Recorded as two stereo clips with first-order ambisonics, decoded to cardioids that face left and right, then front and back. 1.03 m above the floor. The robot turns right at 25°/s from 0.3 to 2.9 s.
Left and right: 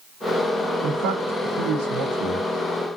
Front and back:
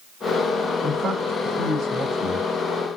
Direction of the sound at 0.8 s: 120° right.